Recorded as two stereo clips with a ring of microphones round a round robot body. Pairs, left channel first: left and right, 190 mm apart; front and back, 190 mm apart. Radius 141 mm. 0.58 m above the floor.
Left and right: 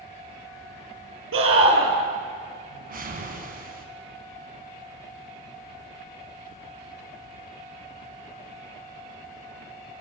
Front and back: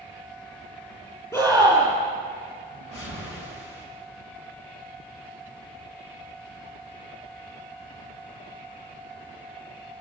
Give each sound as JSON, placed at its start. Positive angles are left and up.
{"t": 1.3, "sound": "a scream", "azimuth_deg": -80, "distance_m": 9.5}
{"t": 2.7, "sound": "a whoosh", "azimuth_deg": -45, "distance_m": 4.0}